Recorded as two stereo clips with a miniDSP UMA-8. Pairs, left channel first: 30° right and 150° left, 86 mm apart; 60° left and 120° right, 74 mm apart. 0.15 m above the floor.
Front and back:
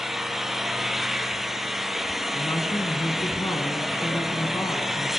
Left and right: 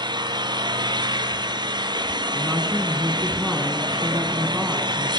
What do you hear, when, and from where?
0.0 s an engine running: 125° right, 0.9 m
2.4 s a woman speaking: 50° right, 1.7 m